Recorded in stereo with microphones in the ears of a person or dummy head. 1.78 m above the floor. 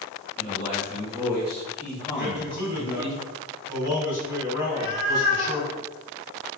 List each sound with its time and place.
0.4 s a man speaking: 45° right (ahead or behind), 0.9 m; by 3.1 s 45° left (ahead or behind), 1.2 m
2.1 s a man speaking: 25° right (ahead or behind), 1.3 m
4.6 s a cat meowing: 30° left (ahead or behind), 1.5 m